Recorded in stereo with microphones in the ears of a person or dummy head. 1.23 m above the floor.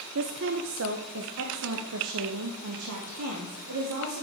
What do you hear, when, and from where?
0.1 s a woman speaking: 55° right (ahead or behind), 0.7 m; by 4.2 s 80° right, 3 m